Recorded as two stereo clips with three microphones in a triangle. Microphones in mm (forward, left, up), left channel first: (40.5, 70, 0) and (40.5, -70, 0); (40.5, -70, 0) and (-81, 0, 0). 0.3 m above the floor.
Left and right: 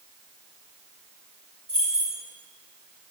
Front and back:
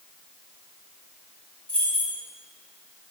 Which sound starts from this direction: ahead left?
Keys jangling, at 1.7 s.